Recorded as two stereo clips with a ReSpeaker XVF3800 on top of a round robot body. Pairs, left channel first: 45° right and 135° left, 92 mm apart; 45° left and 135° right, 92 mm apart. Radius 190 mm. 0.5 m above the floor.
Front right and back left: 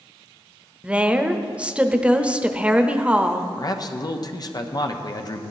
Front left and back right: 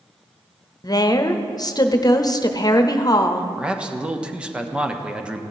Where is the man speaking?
60° right, 1.2 m.